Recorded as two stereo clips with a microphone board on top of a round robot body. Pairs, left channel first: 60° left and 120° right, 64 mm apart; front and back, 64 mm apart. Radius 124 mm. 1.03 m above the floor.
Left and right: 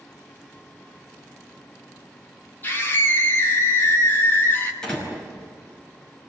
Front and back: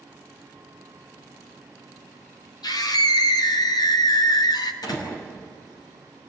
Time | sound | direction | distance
2.6 | a scream | straight ahead | 3 m
4.8 | a door slam | 20° right | 6 m